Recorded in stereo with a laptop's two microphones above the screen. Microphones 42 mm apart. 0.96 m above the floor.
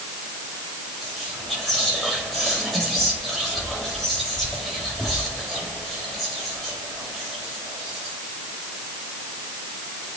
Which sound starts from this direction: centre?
Whispering, at 1.0 s.